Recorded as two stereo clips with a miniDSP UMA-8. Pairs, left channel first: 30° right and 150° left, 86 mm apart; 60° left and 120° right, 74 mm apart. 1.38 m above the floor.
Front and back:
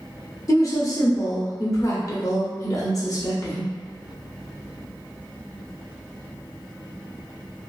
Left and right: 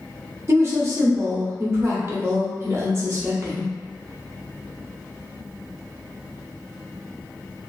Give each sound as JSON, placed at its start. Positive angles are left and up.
{"t": 0.5, "sound": "a woman speaking", "azimuth_deg": -75, "distance_m": 0.9}